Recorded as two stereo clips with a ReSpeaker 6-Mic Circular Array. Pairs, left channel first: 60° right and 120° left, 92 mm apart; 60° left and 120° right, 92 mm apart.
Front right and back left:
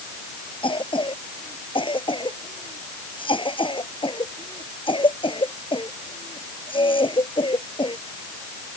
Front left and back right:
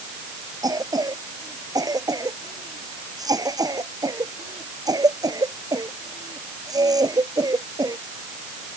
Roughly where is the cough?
Right.